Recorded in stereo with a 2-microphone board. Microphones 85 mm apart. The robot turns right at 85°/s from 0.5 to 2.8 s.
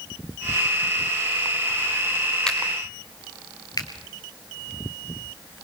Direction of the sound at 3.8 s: 45° left (ahead or behind).